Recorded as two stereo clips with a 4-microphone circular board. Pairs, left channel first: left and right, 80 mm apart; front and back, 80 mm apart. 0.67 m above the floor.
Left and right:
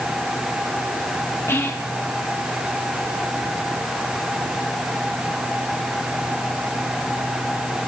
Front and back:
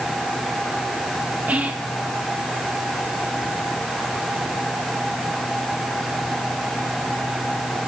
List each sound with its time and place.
1.5 s whispering: 120° left, 0.7 m